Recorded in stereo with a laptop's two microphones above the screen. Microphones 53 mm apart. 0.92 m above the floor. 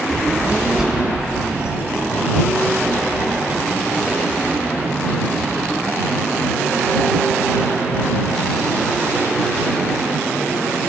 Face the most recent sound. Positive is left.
turn(degrees=-30)  # may be behind; listen again after turning